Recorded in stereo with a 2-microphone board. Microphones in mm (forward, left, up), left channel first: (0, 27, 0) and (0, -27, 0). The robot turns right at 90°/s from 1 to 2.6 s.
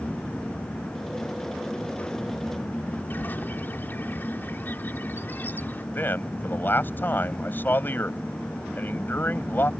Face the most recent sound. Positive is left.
turn(degrees=40)  # may be behind; listen again after turning